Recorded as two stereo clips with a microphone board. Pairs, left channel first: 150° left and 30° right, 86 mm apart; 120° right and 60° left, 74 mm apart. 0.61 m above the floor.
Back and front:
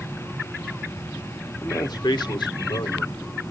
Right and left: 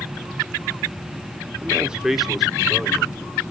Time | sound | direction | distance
1.6 | a man speaking | 120° left | 1.0 m